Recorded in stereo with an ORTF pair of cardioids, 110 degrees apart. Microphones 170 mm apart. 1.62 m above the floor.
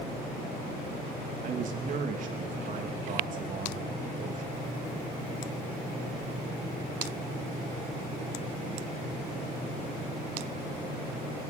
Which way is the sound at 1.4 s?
50° right.